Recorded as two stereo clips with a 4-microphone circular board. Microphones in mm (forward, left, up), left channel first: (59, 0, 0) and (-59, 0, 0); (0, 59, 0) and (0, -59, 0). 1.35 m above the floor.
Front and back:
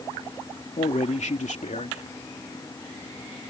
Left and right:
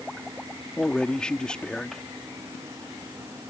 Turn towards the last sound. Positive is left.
turn(degrees=10)